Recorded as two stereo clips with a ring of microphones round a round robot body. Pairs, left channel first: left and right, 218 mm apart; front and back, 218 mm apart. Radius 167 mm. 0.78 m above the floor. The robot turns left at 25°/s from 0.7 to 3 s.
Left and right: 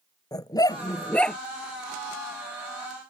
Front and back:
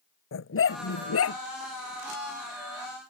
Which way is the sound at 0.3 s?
15° left.